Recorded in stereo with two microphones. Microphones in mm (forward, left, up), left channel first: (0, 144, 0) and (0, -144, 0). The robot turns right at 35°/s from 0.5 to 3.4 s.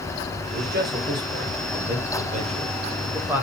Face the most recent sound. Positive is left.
turn(degrees=-5)  # may be behind; listen again after turning